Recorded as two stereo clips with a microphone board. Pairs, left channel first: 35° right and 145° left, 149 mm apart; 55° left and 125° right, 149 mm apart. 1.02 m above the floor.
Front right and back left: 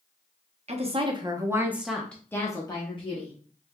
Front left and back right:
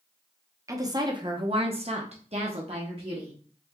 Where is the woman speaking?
175° left, 0.9 m; by 3.3 s 75° right, 1.2 m.